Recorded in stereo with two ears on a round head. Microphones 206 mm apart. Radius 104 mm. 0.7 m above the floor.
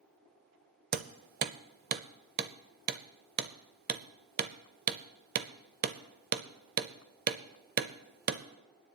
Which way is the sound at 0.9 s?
40° right (ahead or behind).